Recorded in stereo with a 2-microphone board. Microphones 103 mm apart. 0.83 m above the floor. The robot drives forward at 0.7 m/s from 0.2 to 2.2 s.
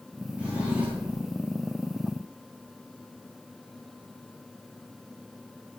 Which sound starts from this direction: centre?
A drawer, at 0.4 s.